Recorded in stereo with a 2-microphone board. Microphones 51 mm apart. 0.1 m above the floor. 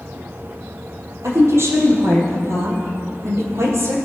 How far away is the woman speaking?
About 3.5 m.